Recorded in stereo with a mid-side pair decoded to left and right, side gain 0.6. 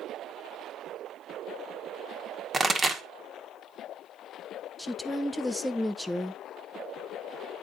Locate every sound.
2.5 s a pop: 25° right, 1.4 m
4.8 s a woman speaking: 5° left, 0.9 m